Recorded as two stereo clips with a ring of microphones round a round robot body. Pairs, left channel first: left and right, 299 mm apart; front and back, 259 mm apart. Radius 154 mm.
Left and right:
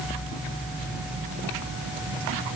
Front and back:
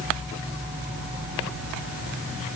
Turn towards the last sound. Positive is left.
No sound to turn to.